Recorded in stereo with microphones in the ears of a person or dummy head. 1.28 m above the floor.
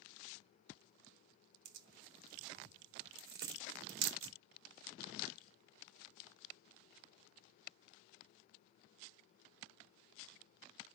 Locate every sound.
1.6 s tearing paper: 65° right (ahead or behind), 1.2 m